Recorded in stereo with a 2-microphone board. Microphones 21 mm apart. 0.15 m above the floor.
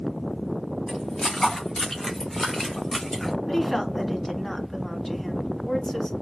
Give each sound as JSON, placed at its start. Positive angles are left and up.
{"t": 0.9, "sound": "footsteps", "side_deg": 35, "distance_m": 3.0}
{"t": 3.5, "sound": "a woman speaking", "side_deg": 20, "distance_m": 1.3}